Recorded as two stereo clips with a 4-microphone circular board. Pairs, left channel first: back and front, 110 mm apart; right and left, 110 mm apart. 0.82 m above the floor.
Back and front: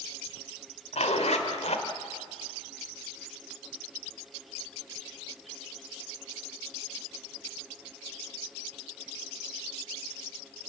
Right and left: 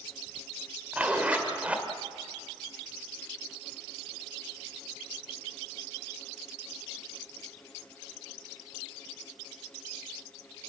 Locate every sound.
0.9 s a zipper: 165° left, 1.8 m